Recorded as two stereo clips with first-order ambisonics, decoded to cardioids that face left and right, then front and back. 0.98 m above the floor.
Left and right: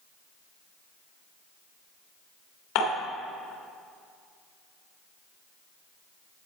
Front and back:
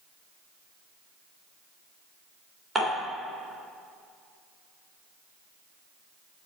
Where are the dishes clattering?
105° left, 2.5 m.